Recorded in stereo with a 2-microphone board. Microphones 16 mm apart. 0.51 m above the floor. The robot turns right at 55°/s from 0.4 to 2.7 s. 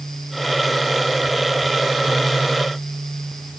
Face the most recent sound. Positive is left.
No sound to turn to.